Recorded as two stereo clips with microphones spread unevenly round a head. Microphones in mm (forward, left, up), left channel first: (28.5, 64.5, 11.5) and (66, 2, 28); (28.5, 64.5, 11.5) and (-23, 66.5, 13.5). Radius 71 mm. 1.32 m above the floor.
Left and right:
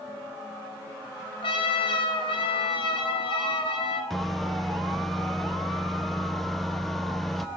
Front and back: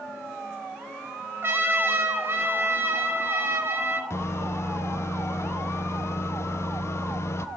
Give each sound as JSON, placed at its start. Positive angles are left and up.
{"t": 1.4, "sound": "a trumpet", "azimuth_deg": 140, "distance_m": 3.5}
{"t": 4.1, "sound": "a microwave", "azimuth_deg": 30, "distance_m": 1.1}